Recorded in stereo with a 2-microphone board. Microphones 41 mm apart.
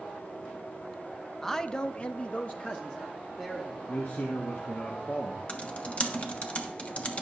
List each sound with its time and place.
1.4 s a man speaking: 10° left (ahead or behind), 0.6 m; by 3.8 s 25° left (ahead or behind), 1.4 m
3.9 s a man speaking: 60° left (ahead or behind), 1.4 m
5.5 s typing on a keyboard: 30° left (ahead or behind), 1.1 m